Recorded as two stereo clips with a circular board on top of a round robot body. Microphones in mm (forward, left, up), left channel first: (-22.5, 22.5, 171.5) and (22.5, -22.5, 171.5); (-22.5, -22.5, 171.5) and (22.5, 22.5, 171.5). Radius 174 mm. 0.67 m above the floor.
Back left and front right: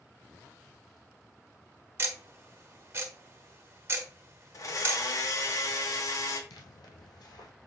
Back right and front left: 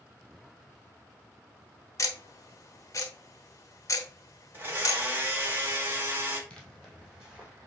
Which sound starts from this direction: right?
Ticking, at 2.0 s.